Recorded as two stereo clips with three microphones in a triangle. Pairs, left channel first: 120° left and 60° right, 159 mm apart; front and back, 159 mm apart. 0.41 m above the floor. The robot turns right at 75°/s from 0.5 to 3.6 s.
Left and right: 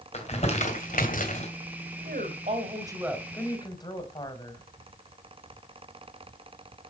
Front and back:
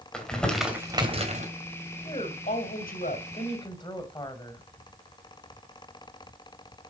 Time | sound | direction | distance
0.1 | crumpling | 85° left | 2.5 m
2.0 | a woman speaking | 60° right | 1.9 m